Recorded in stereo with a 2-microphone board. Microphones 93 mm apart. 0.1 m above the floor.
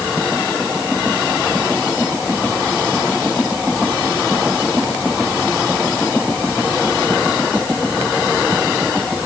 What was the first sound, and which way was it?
Only background noise.